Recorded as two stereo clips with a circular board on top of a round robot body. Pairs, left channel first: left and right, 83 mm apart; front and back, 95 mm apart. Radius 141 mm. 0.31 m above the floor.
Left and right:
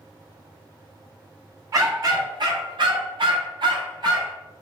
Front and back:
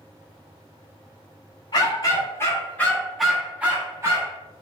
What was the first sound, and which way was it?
A dog barking, 45° right.